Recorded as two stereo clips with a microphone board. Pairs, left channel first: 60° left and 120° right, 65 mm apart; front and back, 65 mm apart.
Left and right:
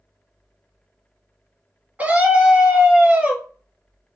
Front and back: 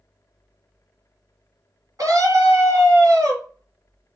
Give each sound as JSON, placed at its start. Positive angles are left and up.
{"t": 2.0, "sound": "a scream", "azimuth_deg": 180, "distance_m": 1.9}